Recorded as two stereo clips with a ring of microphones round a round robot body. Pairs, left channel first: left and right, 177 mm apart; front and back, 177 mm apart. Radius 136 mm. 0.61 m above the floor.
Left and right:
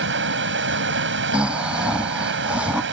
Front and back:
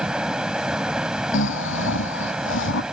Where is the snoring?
5° right.